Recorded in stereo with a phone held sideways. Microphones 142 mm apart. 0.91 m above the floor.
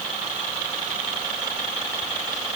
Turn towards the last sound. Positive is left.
No sound to turn to.